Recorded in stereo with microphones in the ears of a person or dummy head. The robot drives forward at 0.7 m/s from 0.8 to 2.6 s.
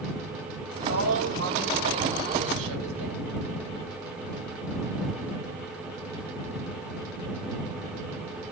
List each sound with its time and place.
0.7 s a woman speaking: 75° right (ahead or behind), 9 m; by 3.4 s 85° right, 8.5 m